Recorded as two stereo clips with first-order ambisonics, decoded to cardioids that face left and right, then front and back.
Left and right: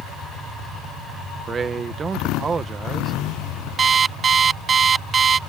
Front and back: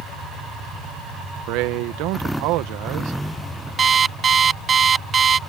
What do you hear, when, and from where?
1.5 s a man speaking: 160° right
3.8 s an alarm clock: 135° right